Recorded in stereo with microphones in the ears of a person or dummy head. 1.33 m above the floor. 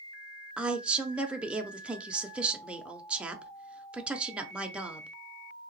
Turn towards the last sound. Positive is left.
turn(degrees=-5)  # may be behind; listen again after turning